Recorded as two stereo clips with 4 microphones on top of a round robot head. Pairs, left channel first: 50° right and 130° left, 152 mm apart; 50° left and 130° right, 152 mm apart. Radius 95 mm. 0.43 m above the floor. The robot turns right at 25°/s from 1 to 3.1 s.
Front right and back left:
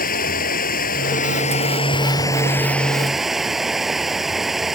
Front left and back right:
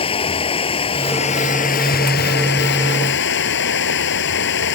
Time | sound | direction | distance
0.0 | running water | 10° right | ?